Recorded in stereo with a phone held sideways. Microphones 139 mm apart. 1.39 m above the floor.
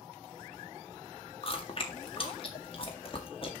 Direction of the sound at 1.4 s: 40° left (ahead or behind).